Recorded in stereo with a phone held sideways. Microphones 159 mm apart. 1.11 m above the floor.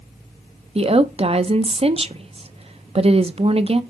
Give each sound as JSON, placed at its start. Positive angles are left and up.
{"t": 0.8, "sound": "a woman speaking", "side_deg": -40, "distance_m": 0.5}